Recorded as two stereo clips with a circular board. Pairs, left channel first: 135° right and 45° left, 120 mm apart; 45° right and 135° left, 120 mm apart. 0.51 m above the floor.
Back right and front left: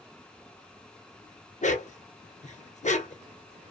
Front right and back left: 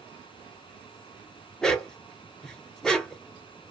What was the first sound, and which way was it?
A dog barking, 130° right.